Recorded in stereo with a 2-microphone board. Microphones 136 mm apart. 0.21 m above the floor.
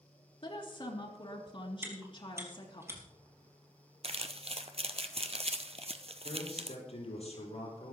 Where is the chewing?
20° right (ahead or behind), 4 m.